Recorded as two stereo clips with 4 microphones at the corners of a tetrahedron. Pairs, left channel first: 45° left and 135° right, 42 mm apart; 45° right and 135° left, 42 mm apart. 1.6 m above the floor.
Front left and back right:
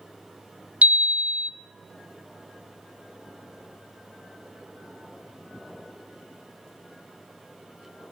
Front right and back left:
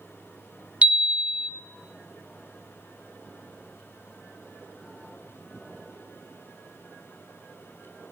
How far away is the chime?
About 0.7 m.